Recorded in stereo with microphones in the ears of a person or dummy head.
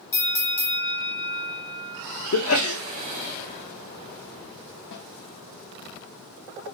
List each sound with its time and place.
0.1 s a bell: 20° left (ahead or behind), 1.5 m
2.3 s a sneeze: 75° left (ahead or behind), 0.8 m
4.9 s a snare drum: 60° left (ahead or behind), 1.8 m